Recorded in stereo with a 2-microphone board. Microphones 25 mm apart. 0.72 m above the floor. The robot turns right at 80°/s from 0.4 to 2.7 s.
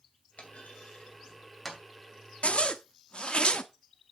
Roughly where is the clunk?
Left.